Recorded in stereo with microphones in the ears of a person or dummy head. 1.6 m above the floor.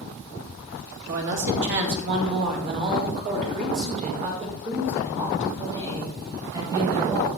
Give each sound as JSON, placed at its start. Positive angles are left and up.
{"t": 1.1, "sound": "a man speaking", "side_deg": -70, "distance_m": 3.0}